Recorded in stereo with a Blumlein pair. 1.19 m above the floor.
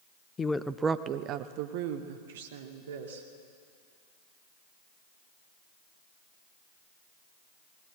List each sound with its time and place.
0.4 s a woman speaking: 20° left, 0.7 m; by 3.3 s 60° right, 2.5 m